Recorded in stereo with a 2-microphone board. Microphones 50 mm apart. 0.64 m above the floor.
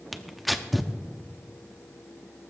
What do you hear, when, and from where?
0.1 s tearing paper: centre (ahead or behind), 0.7 m